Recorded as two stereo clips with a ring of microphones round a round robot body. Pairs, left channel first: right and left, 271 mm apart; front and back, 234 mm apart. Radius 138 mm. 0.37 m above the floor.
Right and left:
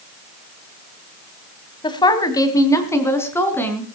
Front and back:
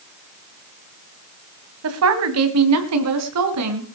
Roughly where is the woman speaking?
Behind.